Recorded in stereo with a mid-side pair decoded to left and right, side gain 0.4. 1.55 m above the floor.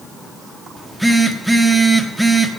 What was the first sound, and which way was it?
A phone buzzing, straight ahead.